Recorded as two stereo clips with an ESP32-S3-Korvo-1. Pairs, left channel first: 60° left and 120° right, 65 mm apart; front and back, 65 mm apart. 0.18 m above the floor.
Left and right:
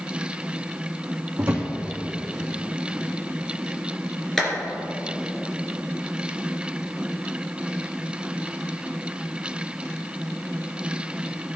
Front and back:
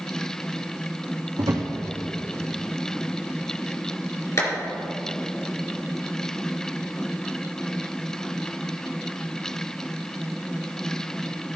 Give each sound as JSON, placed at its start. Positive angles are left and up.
{"t": 1.4, "sound": "a drawer", "azimuth_deg": -170, "distance_m": 2.5}
{"t": 4.4, "sound": "a clap", "azimuth_deg": -25, "distance_m": 3.0}